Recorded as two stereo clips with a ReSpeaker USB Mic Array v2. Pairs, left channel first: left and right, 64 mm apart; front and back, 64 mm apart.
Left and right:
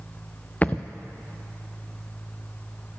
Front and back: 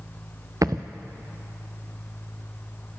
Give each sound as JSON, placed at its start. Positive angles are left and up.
{"t": 0.6, "sound": "a thud", "azimuth_deg": 155, "distance_m": 0.7}